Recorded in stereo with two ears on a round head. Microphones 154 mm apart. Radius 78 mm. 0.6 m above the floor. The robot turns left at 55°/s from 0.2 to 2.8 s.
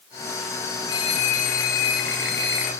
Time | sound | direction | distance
0.9 | a phone ringing | 150° left | 2.5 m